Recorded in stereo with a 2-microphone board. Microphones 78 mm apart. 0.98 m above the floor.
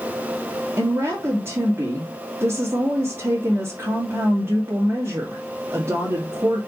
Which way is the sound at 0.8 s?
30° right (ahead or behind).